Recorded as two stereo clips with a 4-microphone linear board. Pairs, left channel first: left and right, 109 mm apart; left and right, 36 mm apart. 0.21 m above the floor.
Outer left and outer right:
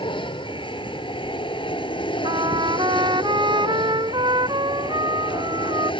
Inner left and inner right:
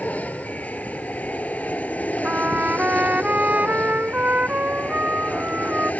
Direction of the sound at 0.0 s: 50° left (ahead or behind).